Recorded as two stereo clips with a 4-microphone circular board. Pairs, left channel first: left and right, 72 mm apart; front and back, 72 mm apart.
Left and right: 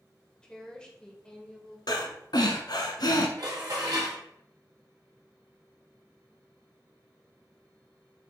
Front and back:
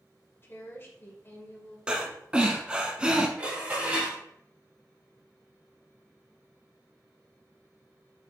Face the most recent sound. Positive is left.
turn(degrees=-110)